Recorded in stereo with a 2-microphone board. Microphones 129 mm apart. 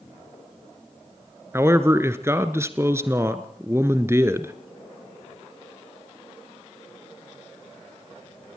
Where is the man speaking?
20° right (ahead or behind), 1.3 m.